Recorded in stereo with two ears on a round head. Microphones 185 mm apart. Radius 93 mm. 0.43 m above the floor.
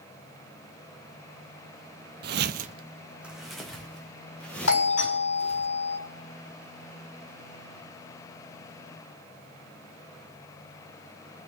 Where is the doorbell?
75° left (ahead or behind), 5.5 m.